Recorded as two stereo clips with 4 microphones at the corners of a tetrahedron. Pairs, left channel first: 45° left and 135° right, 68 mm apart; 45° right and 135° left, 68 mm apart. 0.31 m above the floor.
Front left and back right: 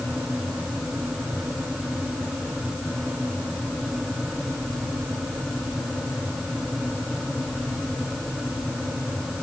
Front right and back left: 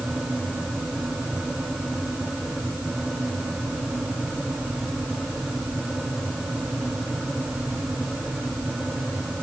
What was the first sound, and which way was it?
Only background noise.